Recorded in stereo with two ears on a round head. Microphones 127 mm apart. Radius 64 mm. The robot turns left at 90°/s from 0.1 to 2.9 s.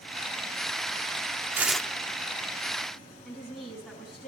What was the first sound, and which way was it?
Tearing paper, 165° right.